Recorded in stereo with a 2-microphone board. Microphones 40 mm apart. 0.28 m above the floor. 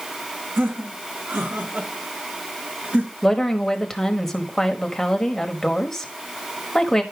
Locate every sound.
0.6 s laughter: 70° right (ahead or behind), 2.5 m; by 3.1 s 45° right (ahead or behind), 4.5 m
3.2 s a woman speaking: 10° left (ahead or behind), 1.2 m